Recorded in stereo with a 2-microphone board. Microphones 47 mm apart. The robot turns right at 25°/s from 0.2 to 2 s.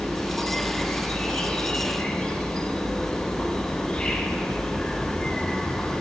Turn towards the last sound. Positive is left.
turn(degrees=20)  # may be behind; listen again after turning